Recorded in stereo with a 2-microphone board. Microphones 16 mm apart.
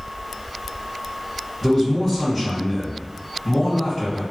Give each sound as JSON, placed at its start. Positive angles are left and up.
{"t": 1.6, "sound": "a man speaking", "side_deg": 5, "distance_m": 1.8}